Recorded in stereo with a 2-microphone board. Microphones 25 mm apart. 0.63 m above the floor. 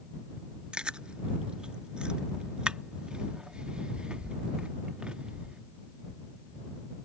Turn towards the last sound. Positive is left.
turn(degrees=-45)  # may be behind; listen again after turning